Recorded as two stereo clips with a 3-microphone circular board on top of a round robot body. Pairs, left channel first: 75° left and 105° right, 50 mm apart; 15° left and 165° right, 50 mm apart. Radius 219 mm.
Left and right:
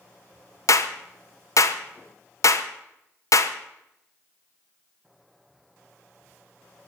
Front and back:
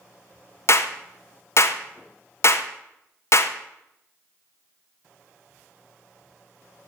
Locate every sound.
0.7 s a clap: 50° left, 1.1 m